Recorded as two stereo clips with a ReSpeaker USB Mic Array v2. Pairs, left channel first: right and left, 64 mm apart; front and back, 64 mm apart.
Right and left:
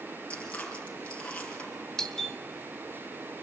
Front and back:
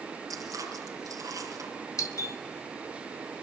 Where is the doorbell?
10° right, 2.5 m.